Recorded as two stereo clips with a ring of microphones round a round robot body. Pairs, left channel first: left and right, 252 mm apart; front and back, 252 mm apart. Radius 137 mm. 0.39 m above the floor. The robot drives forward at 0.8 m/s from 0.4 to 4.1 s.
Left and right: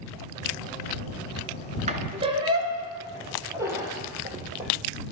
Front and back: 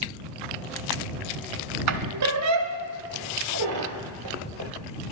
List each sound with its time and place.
1.9 s a squeak: 155° right, 1.0 m; by 4.7 s 170° right, 2.5 m